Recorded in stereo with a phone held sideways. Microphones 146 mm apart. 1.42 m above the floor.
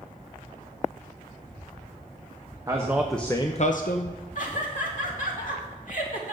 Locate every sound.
2.7 s a man speaking: 20° right (ahead or behind), 1.2 m; by 4.2 s 75° left (ahead or behind), 1.1 m
4.3 s laughter: 65° left (ahead or behind), 3 m